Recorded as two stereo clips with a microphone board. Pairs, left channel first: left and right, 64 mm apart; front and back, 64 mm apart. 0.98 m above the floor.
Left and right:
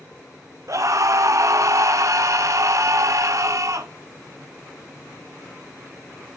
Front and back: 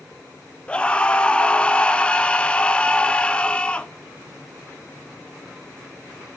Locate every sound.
0.7 s a scream: 70° right, 0.7 m